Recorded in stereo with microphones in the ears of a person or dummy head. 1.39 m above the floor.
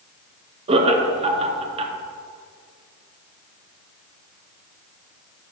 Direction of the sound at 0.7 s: 35° right (ahead or behind).